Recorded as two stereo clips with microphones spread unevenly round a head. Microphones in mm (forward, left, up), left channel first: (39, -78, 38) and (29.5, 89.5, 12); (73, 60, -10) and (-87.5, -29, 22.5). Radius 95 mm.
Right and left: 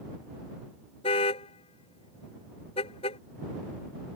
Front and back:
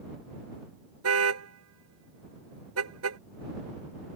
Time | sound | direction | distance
1.0 | a car horn | 150° right | ?